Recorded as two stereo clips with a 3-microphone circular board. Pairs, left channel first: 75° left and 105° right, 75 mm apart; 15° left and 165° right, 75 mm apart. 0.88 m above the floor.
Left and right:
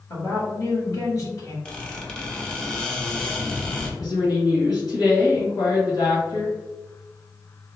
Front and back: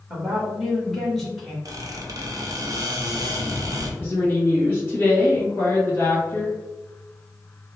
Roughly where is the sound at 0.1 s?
Left.